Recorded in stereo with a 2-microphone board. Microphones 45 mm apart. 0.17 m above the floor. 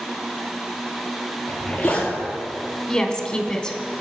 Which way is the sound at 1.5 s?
25° left (ahead or behind).